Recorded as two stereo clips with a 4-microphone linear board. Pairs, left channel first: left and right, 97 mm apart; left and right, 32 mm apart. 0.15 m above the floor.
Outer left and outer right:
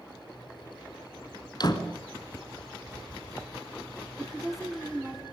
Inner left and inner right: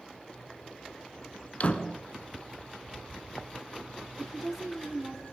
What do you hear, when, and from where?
1.6 s a door slam: 45° left (ahead or behind), 1.3 m
4.2 s a woman speaking: centre (ahead or behind), 1.3 m